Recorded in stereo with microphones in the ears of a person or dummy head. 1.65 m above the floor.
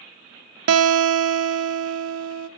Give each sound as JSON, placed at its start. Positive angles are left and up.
{"t": 0.7, "sound": "a guitar", "side_deg": -85, "distance_m": 0.5}